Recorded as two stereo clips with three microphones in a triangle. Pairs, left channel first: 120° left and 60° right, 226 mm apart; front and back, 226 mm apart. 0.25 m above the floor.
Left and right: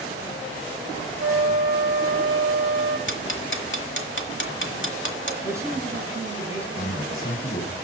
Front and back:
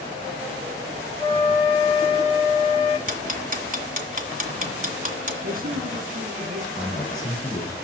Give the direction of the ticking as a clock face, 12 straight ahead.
8 o'clock.